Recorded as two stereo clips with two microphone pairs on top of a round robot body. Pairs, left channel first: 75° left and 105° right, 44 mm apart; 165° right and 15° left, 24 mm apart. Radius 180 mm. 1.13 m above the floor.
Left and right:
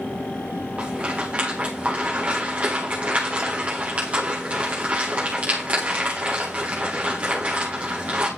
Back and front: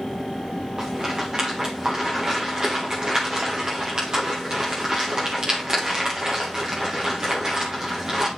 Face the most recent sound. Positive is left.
turn(degrees=-45)